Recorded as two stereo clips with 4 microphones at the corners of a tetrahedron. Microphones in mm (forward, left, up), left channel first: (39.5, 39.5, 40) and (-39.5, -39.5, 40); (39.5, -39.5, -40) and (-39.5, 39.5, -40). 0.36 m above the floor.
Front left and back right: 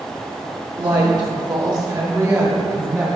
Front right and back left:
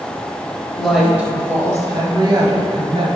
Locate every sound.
0.8 s a woman speaking: 130° right, 1.1 m; by 3.2 s 155° left, 1.8 m